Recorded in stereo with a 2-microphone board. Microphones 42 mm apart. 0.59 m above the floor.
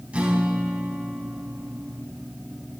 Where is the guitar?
35° right (ahead or behind), 3.5 m.